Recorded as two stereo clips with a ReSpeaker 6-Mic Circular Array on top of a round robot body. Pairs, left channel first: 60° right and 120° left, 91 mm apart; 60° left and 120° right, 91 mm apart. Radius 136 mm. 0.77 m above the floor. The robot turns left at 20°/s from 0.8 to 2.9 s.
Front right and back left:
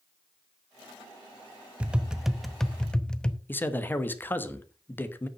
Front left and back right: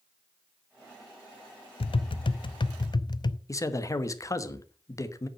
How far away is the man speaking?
About 1.3 m.